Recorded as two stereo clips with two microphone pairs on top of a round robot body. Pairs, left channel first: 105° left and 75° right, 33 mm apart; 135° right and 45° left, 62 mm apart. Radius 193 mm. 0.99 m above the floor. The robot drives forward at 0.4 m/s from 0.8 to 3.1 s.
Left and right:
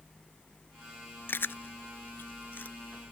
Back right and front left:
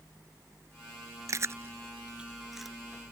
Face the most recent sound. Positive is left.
turn(degrees=140)